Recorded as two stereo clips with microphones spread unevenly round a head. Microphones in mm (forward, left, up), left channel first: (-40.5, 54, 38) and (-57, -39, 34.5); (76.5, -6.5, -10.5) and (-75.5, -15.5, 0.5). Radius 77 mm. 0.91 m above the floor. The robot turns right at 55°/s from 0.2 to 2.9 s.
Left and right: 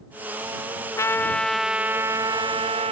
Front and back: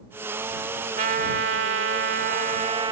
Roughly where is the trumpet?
Behind left.